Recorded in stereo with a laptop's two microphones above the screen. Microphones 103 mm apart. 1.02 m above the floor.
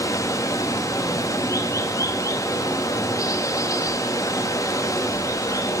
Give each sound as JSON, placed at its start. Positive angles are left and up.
{"t": 0.0, "sound": "running water", "side_deg": 30, "distance_m": 0.9}